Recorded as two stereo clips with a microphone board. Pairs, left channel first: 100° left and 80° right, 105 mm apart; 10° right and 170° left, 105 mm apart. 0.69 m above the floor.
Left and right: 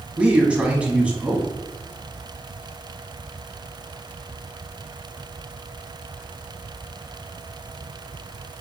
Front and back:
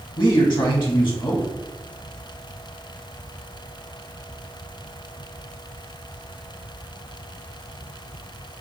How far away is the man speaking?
About 1.0 m.